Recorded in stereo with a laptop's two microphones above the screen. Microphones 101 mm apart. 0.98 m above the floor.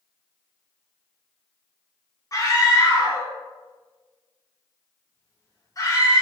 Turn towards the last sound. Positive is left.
turn(degrees=35)  # may be behind; listen again after turning